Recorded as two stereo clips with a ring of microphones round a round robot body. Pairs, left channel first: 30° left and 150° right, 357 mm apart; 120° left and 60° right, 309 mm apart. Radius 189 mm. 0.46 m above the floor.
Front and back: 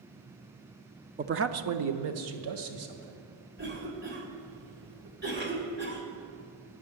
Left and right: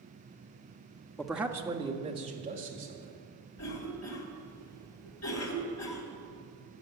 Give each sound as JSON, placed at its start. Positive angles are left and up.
{"t": 1.2, "sound": "a man speaking", "azimuth_deg": -160, "distance_m": 0.7}
{"t": 3.6, "sound": "a cough", "azimuth_deg": 155, "distance_m": 2.0}